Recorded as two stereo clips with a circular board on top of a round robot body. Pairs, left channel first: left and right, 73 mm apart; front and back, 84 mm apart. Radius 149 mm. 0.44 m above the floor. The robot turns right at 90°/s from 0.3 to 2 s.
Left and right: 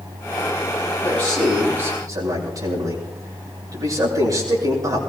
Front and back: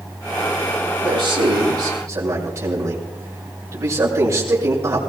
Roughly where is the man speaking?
Behind left.